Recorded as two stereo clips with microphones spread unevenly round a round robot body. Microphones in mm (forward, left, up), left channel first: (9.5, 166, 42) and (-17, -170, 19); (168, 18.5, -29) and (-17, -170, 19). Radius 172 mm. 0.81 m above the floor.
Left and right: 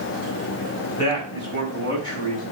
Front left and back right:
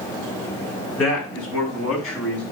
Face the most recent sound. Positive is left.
turn(degrees=10)